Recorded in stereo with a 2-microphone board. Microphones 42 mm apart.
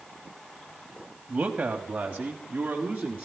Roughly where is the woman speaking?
Right.